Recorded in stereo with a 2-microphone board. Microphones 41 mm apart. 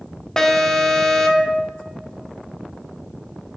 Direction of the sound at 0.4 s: 15° left (ahead or behind).